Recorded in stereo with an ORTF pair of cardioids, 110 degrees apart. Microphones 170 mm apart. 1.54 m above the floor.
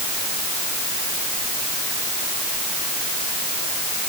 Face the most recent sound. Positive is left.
No sound to turn to.